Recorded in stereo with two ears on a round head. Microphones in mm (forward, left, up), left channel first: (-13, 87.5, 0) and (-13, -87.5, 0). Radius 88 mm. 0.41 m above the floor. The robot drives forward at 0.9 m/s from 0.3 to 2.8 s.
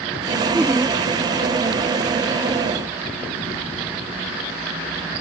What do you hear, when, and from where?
0.5 s laughter: 10° right (ahead or behind)